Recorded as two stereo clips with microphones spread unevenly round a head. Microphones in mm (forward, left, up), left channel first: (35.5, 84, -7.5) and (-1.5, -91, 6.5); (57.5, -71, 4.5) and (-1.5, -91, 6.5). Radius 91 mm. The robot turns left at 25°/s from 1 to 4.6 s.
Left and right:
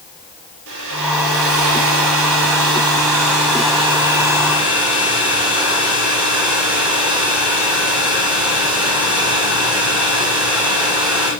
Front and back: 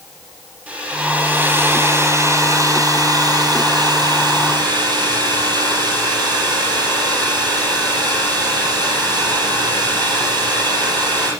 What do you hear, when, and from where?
0.7 s a hair dryer: 95° right, 7 m; by 11.3 s 175° left, 7 m